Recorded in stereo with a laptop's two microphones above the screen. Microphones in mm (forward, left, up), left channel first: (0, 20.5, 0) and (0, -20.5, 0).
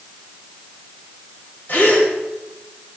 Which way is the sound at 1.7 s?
60° left (ahead or behind).